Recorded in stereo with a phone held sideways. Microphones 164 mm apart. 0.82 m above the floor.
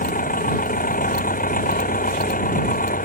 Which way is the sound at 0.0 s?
60° left (ahead or behind).